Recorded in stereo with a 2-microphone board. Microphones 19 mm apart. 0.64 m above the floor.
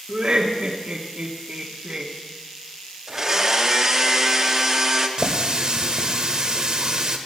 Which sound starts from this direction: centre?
A blender, at 3.1 s.